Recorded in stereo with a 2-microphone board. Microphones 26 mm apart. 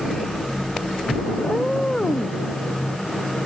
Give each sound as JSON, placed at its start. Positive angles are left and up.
{"t": 1.4, "sound": "a cat meowing", "side_deg": 20}